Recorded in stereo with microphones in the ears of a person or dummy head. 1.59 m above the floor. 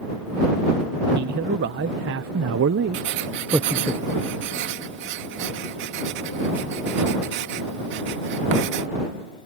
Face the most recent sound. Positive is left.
turn(degrees=-60)  # may be behind; listen again after turning